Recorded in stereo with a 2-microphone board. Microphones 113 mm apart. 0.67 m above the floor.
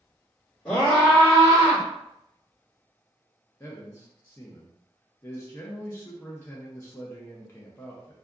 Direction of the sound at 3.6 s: 25° left (ahead or behind).